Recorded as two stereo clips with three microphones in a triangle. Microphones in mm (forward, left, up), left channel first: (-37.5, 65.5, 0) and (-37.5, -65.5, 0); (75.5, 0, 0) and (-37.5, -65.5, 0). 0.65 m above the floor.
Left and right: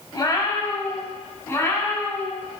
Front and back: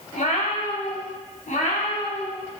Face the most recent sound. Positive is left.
turn(degrees=15)